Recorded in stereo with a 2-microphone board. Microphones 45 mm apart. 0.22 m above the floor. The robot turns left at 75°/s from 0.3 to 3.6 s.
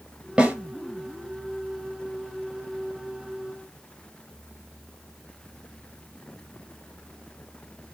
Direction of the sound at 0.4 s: 20° right (ahead or behind).